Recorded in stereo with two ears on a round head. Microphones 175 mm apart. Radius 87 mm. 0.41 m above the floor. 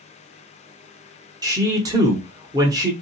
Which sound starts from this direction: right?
A man speaking, at 1.4 s.